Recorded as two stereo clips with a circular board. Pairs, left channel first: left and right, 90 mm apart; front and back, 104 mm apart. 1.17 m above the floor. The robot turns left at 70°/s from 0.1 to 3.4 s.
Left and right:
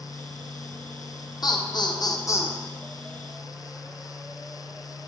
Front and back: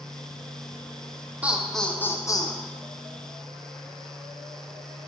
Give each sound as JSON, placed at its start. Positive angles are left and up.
{"t": 1.4, "sound": "laughter", "azimuth_deg": 110, "distance_m": 0.8}